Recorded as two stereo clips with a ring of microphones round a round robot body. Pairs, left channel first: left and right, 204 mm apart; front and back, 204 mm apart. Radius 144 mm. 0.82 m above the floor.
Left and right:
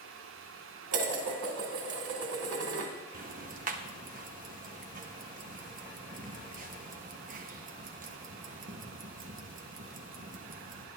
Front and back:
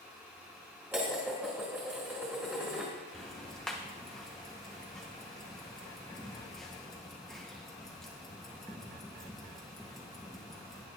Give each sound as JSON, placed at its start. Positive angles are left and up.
{"t": 0.9, "sound": "dishes clattering", "azimuth_deg": -95, "distance_m": 2.5}
{"t": 3.1, "sound": "ticking", "azimuth_deg": -85, "distance_m": 1.0}